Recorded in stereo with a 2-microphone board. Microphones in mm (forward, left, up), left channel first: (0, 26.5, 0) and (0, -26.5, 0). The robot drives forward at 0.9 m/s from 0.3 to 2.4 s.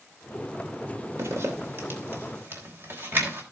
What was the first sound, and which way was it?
A zipper, 60° right (ahead or behind).